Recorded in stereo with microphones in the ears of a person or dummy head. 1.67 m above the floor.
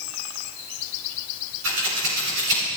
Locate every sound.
1.6 s scissors: 70° right (ahead or behind), 5 m